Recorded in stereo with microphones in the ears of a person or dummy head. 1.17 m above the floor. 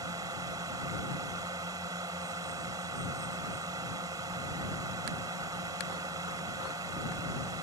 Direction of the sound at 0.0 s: 20° right (ahead or behind).